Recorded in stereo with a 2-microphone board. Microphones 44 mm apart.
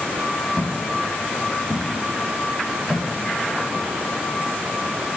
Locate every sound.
0.6 s footsteps: 15° left (ahead or behind), 9.5 m; by 3.9 s 25° left (ahead or behind), 11 m